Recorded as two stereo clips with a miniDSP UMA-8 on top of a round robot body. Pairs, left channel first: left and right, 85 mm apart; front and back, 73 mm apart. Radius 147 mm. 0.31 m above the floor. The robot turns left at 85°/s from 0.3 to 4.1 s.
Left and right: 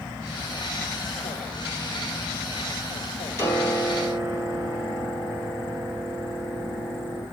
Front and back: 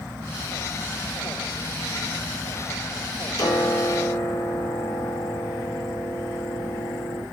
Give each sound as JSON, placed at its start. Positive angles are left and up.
{"t": 3.4, "sound": "a piano", "azimuth_deg": 35, "distance_m": 4.5}